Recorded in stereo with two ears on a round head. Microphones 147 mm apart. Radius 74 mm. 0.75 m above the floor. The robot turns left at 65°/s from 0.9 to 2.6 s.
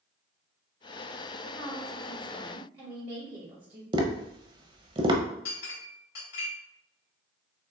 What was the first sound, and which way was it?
A woman speaking, 40° left.